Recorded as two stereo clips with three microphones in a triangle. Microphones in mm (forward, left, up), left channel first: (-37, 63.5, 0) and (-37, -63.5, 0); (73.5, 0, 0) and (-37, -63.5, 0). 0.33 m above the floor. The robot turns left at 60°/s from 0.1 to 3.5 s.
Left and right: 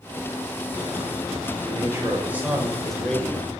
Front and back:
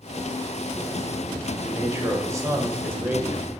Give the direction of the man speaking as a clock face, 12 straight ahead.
4 o'clock.